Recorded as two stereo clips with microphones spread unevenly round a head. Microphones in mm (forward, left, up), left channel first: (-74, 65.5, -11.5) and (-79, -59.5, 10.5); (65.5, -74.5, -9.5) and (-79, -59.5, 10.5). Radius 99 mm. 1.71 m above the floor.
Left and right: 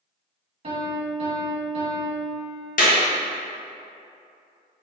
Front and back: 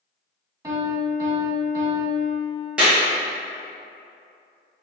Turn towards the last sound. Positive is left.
turn(degrees=90)